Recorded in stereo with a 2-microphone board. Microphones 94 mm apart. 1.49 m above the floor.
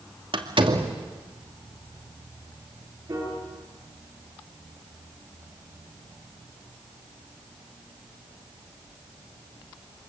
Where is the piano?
35° right (ahead or behind), 9 m.